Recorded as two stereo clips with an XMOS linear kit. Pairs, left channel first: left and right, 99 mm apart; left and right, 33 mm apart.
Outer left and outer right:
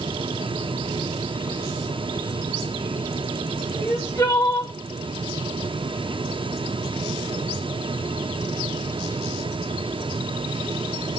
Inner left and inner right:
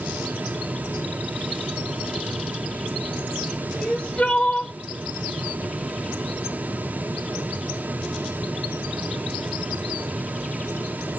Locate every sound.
3.8 s crying: 30° left (ahead or behind), 2.5 m